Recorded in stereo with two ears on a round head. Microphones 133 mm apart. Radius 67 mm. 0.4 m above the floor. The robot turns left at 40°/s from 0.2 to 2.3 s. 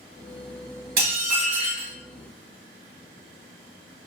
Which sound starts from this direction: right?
Dishes clattering, at 1.0 s.